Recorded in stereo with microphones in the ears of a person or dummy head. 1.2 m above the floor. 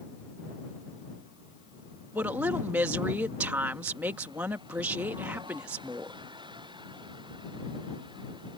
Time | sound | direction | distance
2.1 | a woman speaking | 10° right (ahead or behind) | ?